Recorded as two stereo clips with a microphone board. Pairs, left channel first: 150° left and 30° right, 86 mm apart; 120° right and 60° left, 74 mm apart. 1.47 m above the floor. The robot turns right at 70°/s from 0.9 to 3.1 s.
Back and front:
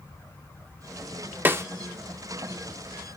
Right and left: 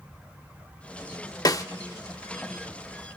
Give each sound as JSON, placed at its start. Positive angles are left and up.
{"t": 1.4, "sound": "a snare drum", "azimuth_deg": -95, "distance_m": 0.7}